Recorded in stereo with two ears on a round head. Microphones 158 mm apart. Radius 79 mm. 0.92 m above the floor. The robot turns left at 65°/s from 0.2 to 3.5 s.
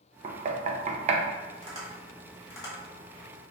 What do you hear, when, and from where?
0.2 s knocking: 40° right (ahead or behind), 0.5 m; by 1.2 s 35° right (ahead or behind), 0.5 m
1.6 s tapping: 40° right (ahead or behind), 1.6 m; by 2.8 s 30° left (ahead or behind), 1.6 m